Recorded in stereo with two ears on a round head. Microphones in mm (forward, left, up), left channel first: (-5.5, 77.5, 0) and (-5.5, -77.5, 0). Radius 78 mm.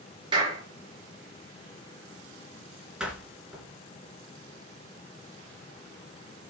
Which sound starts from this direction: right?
A clap, at 0.3 s.